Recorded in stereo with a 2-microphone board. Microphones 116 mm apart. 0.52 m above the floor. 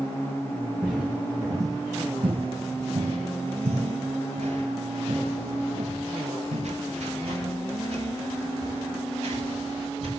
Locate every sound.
0.8 s footsteps: 10° right (ahead or behind), 1.9 m; by 10.1 s 55° right (ahead or behind), 6.5 m